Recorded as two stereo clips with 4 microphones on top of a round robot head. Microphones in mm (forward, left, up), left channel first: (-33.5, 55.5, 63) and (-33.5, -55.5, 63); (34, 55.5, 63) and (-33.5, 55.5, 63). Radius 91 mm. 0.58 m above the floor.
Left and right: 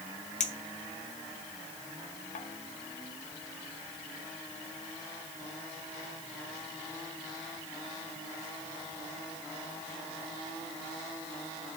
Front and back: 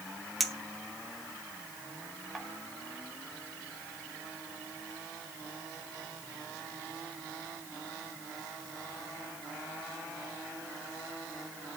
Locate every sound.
0.4 s a clink: 90° left, 1.5 m